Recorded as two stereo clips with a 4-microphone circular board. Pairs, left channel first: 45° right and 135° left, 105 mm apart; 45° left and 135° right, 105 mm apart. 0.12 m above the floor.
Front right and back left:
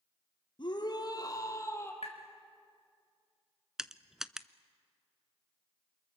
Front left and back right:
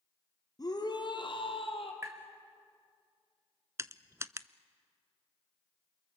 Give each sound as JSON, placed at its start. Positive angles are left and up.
{"t": 0.6, "sound": "a shout", "azimuth_deg": -5, "distance_m": 3.0}
{"t": 2.0, "sound": "tapping", "azimuth_deg": -70, "distance_m": 3.0}
{"t": 3.8, "sound": "crushing", "azimuth_deg": -150, "distance_m": 0.6}